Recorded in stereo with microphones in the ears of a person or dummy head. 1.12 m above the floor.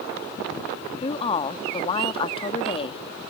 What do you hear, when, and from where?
1.0 s a woman speaking: 30° left (ahead or behind)